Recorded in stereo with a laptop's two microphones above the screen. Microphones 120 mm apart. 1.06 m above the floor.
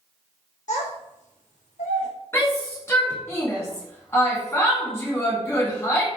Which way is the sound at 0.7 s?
85° left.